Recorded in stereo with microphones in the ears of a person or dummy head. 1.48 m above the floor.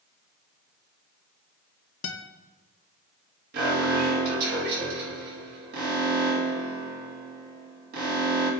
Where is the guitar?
65° left (ahead or behind), 0.6 m.